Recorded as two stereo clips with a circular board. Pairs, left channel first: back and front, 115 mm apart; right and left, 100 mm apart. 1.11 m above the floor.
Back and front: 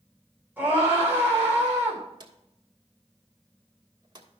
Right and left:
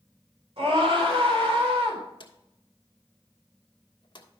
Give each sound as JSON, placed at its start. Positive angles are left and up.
{"t": 0.6, "sound": "a scream", "azimuth_deg": 75, "distance_m": 4.0}
{"t": 2.2, "sound": "a drawer", "azimuth_deg": -50, "distance_m": 1.5}